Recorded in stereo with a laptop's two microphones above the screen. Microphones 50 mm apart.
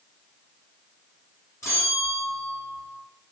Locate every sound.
1.6 s a bell: 80° left, 4.5 m